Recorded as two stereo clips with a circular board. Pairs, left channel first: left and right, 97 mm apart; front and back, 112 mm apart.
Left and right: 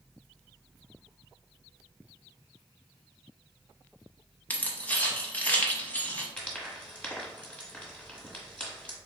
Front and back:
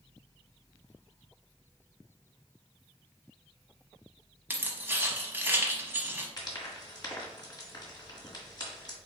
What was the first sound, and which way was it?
Keys jangling, 135° left.